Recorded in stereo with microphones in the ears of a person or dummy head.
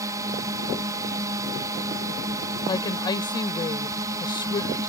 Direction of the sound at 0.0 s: 25° right (ahead or behind).